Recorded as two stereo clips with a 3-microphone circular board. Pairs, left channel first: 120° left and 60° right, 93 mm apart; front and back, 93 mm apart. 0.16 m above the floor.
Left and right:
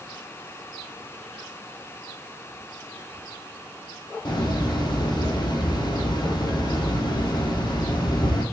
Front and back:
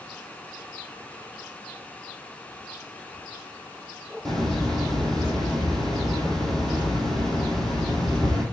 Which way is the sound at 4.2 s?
85° left.